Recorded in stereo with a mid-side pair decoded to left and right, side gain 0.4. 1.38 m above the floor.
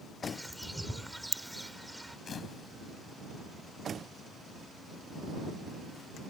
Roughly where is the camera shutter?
Ahead left.